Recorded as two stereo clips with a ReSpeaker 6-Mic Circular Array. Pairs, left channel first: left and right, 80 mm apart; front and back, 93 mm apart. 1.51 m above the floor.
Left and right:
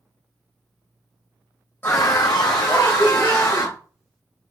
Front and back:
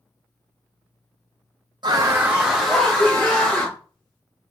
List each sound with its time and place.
1.8 s a scream: 150° left, 0.5 m; by 3.8 s 70° left, 1.8 m